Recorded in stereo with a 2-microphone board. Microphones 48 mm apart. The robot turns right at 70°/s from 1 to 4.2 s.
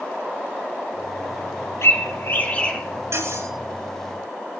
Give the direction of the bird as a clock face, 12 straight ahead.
9 o'clock.